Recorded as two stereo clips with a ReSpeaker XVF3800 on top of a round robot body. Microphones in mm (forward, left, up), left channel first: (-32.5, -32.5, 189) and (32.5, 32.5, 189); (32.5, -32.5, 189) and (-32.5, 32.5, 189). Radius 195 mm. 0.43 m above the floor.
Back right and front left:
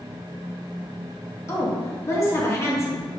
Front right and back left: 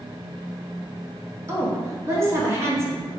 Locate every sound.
1.5 s a woman speaking: straight behind, 1.6 m